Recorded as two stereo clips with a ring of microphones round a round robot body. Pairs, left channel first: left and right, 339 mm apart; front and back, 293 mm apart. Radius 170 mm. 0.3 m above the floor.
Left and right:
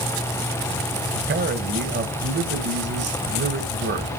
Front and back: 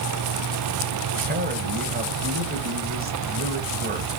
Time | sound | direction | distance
1.1 | a man speaking | 135° right | 1.2 m